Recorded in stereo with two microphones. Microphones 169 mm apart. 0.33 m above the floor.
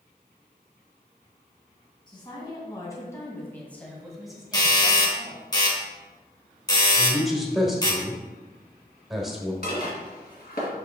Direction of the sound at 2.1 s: 30° left (ahead or behind).